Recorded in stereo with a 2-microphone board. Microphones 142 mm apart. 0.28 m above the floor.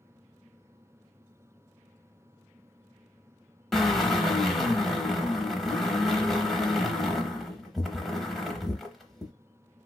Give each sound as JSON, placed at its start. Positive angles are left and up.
{"t": 3.7, "sound": "a drill", "side_deg": 0, "distance_m": 0.7}